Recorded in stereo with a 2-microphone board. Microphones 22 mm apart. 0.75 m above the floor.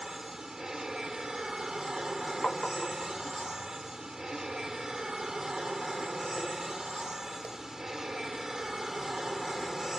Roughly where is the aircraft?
Right.